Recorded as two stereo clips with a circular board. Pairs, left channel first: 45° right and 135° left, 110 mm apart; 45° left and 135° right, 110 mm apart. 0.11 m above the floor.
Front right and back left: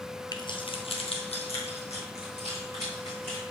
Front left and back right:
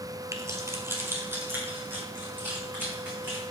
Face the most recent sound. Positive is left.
turn(degrees=-60)